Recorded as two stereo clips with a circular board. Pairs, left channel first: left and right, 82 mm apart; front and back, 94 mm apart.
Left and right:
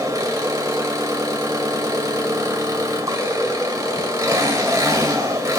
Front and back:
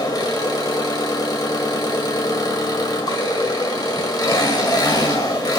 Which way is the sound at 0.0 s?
45° right.